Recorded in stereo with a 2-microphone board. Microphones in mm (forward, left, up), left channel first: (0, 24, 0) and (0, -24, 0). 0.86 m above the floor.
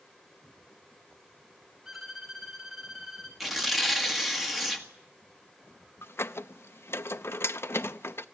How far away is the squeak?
About 0.6 m.